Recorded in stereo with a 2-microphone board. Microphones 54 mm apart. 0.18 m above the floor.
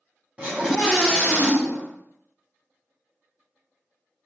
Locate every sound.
0.4 s a scream: 20° right (ahead or behind), 1.2 m; by 1.9 s 30° left (ahead or behind), 1.7 m